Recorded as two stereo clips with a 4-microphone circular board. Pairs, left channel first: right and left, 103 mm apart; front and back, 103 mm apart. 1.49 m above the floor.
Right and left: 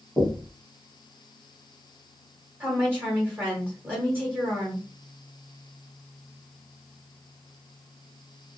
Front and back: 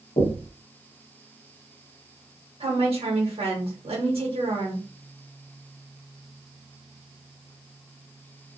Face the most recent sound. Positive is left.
turn(degrees=160)